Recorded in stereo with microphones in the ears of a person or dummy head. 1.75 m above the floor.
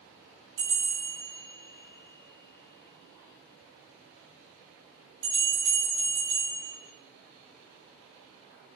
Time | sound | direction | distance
0.6 | a bell | 70° right (ahead or behind) | 3 m